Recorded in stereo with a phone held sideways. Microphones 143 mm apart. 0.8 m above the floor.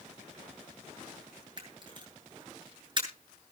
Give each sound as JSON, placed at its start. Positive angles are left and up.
{"t": 1.6, "sound": "a camera shutter", "side_deg": -35, "distance_m": 8.0}